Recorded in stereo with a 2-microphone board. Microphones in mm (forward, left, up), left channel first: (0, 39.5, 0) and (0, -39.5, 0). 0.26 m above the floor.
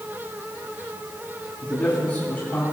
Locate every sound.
1.6 s a man speaking: 35° left (ahead or behind), 2.5 m; by 2.6 s 45° left (ahead or behind), 3.5 m